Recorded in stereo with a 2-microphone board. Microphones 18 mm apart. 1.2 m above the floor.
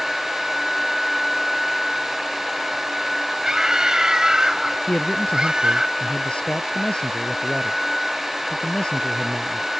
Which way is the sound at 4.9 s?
90° left.